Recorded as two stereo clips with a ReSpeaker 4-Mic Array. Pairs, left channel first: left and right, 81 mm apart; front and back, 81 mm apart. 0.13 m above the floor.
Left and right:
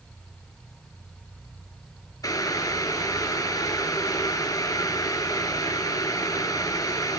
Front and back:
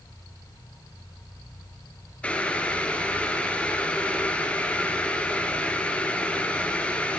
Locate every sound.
2.2 s boiling: 70° left, 2.5 m